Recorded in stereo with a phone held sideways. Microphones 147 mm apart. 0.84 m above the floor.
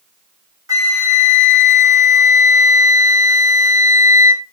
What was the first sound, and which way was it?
A flute, 25° right (ahead or behind).